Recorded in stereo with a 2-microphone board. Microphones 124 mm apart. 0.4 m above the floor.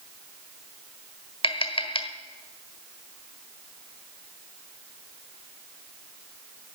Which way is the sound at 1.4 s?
45° left (ahead or behind).